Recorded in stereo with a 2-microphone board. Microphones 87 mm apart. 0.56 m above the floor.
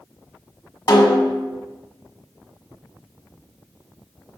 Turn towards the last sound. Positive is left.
turn(degrees=55)  # may be behind; listen again after turning